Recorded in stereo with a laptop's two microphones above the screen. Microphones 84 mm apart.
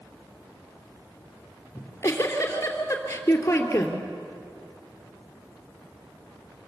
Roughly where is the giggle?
Left.